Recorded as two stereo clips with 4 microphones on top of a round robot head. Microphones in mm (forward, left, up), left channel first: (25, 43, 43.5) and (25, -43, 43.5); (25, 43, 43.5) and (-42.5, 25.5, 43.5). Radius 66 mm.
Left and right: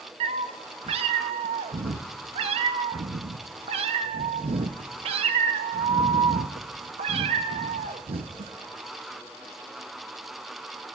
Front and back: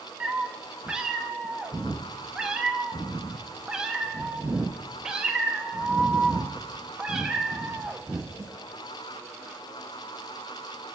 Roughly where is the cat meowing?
Right.